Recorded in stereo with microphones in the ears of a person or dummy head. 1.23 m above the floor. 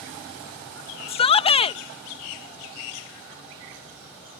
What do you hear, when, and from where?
1.1 s a shout: 35° left (ahead or behind)